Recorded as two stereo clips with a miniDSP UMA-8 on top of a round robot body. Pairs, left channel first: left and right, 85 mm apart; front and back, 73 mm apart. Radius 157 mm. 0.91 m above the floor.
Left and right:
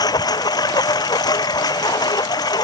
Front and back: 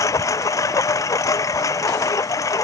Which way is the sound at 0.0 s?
45° left.